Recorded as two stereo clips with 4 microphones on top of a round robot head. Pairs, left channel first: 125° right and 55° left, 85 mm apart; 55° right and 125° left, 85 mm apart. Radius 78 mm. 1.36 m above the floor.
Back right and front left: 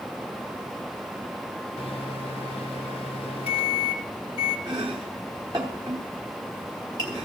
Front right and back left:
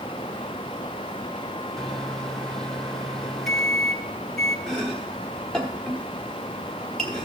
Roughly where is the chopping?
Ahead left.